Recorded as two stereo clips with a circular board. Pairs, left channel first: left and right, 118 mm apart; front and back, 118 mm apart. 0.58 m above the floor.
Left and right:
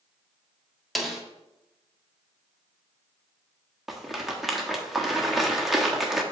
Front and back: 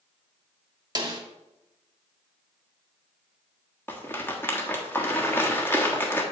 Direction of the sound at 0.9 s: 175° right.